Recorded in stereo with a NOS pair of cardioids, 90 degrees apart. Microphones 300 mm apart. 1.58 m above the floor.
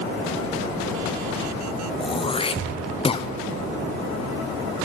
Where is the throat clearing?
20° left, 0.6 m.